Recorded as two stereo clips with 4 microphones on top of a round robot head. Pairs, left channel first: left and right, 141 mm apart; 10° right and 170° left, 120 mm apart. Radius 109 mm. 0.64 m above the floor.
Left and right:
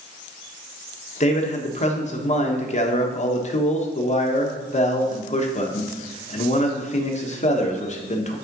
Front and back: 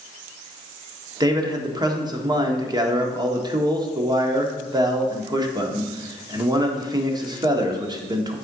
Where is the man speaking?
120° left, 1.6 m.